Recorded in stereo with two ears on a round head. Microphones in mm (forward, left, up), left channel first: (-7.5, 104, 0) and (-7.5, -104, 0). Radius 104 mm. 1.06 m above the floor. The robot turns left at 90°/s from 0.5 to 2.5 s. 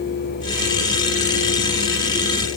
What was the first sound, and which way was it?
Only background noise.